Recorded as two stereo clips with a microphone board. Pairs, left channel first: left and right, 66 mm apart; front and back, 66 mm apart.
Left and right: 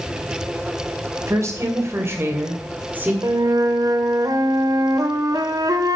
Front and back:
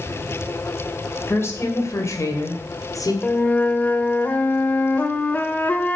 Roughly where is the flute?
Ahead right.